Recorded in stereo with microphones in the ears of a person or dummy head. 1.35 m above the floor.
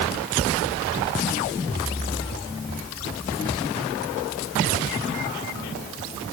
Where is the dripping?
I don't hear dripping.